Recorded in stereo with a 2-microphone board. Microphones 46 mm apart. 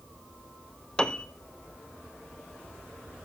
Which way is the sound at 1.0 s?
20° left (ahead or behind).